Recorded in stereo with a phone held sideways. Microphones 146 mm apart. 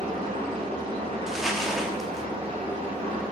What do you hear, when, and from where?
0.0 s an engine running: 40° right (ahead or behind), 4 m
1.3 s crumpling: centre (ahead or behind), 1.5 m